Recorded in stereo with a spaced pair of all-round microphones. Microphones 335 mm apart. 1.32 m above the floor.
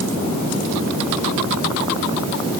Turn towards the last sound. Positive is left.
No sound to turn to.